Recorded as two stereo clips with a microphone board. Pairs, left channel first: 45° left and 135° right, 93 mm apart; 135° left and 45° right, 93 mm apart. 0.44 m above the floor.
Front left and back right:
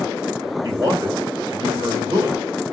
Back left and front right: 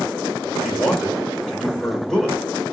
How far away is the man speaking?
About 1.8 m.